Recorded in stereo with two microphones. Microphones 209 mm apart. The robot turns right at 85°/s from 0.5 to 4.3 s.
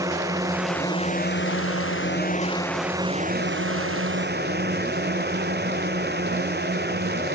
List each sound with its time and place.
0.0 s a drone: 15° right; by 7.3 s 50° right